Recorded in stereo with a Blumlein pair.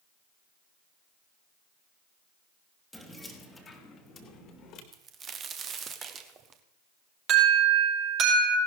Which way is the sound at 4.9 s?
25° right.